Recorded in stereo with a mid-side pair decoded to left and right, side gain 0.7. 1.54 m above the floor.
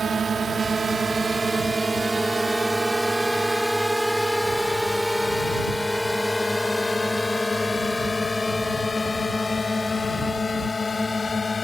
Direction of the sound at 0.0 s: 25° right.